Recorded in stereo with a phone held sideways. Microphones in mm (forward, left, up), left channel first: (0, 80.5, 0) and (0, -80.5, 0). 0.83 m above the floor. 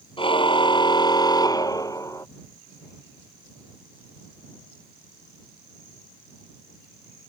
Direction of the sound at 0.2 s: 30° left (ahead or behind).